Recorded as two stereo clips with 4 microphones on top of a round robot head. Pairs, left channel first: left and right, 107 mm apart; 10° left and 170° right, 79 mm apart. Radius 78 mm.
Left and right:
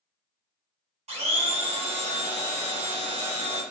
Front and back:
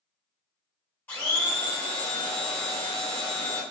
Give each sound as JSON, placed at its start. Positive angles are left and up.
{"t": 1.1, "sound": "a blender", "azimuth_deg": -65, "distance_m": 1.1}